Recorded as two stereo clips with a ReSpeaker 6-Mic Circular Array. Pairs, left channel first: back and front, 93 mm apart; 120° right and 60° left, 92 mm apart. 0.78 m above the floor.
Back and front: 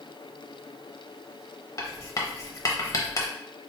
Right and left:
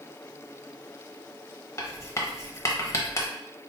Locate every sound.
1.8 s writing: 155° right, 0.7 m